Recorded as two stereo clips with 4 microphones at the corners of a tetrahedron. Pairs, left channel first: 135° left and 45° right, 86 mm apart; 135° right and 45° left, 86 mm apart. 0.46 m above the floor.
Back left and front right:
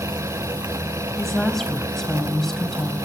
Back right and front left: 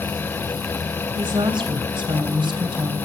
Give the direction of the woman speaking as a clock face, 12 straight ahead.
10 o'clock.